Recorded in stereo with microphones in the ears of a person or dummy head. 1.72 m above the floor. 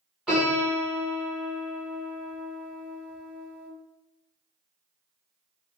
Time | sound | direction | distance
0.3 | a piano | 5° right (ahead or behind) | 1.4 m